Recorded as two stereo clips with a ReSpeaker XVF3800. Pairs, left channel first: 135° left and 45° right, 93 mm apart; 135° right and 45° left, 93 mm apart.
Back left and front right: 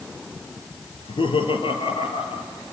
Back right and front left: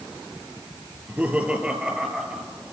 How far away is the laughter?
About 4 m.